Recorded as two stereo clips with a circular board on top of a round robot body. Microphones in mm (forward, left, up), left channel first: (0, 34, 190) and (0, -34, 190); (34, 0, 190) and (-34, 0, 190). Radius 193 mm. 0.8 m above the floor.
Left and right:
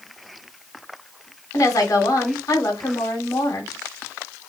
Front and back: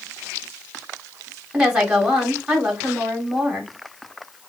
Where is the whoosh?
No whoosh in this recording.